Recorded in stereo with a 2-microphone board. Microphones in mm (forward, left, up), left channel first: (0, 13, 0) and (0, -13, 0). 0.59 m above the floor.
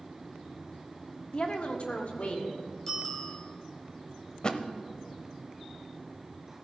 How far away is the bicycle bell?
About 2.5 m.